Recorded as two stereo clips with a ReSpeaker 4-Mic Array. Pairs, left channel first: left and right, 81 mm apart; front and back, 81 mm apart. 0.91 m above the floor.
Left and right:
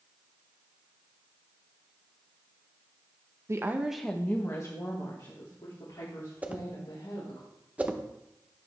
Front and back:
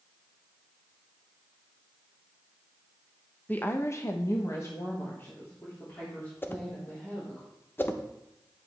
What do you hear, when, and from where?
3.5 s a woman speaking: 60° right, 0.8 m; by 7.4 s 65° left, 3.5 m
6.4 s a whoosh: 35° right, 0.7 m